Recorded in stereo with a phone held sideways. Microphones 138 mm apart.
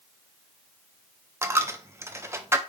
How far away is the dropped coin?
About 0.5 m.